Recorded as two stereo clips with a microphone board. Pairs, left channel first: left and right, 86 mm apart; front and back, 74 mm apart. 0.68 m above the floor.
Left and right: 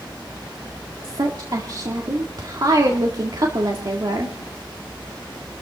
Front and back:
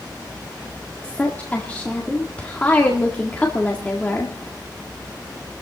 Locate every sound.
1.0 s a woman speaking: 65° right, 1.8 m